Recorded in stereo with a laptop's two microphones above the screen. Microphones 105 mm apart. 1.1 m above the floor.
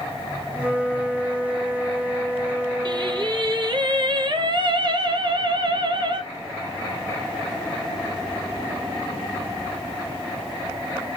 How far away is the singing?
About 0.7 m.